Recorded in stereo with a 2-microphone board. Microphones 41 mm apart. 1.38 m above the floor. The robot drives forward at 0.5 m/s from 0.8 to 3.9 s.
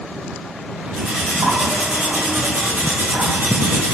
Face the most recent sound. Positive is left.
turn(degrees=-50)  # may be behind; listen again after turning